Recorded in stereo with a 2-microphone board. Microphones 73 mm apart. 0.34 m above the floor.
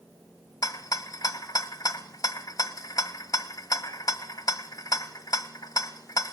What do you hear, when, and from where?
0.6 s a rattle: 55° left (ahead or behind), 1.4 m